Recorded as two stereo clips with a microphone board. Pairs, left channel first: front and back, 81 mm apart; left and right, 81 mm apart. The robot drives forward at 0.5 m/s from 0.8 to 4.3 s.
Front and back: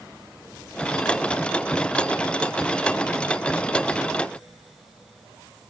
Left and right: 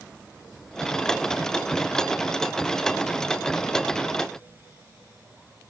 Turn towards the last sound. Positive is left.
No sound to turn to.